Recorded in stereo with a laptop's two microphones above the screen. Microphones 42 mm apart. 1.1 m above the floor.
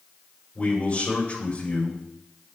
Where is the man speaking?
30° left (ahead or behind), 4 m.